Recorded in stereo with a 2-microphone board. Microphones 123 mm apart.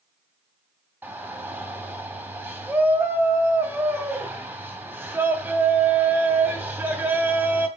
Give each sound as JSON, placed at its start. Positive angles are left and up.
{"t": 1.0, "sound": "a shout", "side_deg": -15, "distance_m": 3.0}